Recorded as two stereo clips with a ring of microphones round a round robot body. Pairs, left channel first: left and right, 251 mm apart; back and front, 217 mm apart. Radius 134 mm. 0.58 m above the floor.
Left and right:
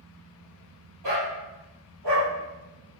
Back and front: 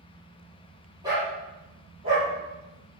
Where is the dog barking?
75° right, 6.5 m; by 2.3 s 70° right, 8 m.